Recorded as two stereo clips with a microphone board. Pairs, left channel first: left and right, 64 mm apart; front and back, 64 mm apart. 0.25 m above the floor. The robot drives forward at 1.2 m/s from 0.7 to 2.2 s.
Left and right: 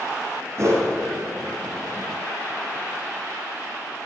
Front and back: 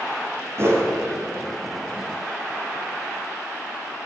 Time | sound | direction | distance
0.6 | a whoosh | 135° right | 3 m